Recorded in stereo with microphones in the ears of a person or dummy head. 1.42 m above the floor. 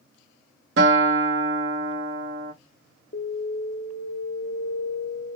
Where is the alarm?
35° left (ahead or behind), 0.7 m.